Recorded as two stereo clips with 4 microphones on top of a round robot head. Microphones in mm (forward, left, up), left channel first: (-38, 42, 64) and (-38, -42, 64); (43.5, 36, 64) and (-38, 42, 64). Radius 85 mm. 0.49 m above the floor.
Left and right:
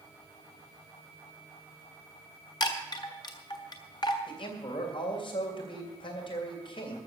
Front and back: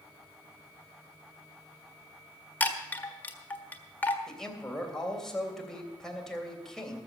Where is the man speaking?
80° left, 3 m.